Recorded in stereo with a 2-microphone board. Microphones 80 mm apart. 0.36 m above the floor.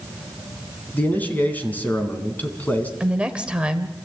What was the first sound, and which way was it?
A man speaking, 20° left (ahead or behind).